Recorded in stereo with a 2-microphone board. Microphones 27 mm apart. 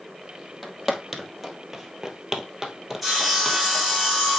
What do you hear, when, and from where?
0.6 s footsteps: 5° right (ahead or behind), 1.7 m; by 3.9 s 15° right (ahead or behind), 1.9 m
3.0 s sawing: 5° right (ahead or behind), 4 m